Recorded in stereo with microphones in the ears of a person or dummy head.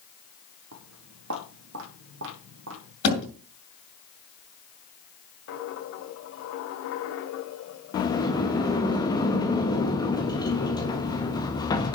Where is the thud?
70° left (ahead or behind), 6.5 m.